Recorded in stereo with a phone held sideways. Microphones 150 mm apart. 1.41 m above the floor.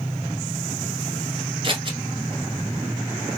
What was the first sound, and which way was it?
Scissors, 35° right (ahead or behind).